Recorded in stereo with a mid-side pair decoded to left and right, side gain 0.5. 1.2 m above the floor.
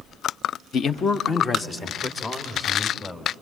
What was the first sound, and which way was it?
A man speaking, 55° left.